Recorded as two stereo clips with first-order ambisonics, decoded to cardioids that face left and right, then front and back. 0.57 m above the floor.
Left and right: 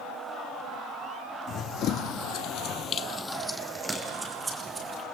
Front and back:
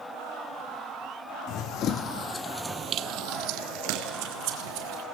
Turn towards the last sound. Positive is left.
turn(degrees=-170)